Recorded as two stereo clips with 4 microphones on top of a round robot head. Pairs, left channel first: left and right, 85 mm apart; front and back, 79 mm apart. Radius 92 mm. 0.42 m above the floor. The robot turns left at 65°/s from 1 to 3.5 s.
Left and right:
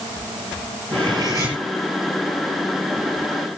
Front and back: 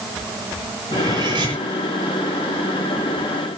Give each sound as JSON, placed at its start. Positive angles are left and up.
{"t": 0.9, "sound": "cutlery clinking", "azimuth_deg": -125, "distance_m": 8.0}